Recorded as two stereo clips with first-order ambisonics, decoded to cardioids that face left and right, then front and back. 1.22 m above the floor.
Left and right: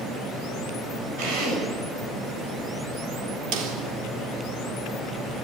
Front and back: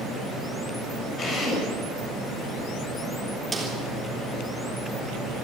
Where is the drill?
65° right, 8 m.